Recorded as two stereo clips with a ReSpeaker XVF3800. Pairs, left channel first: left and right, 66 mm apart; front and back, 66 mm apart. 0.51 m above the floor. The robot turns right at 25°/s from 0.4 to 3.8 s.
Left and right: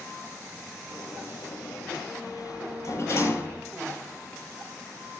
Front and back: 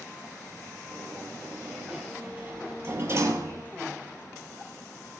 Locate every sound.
0.9 s a sliding door: 80° left, 8.5 m; by 3.6 s 150° left, 8.5 m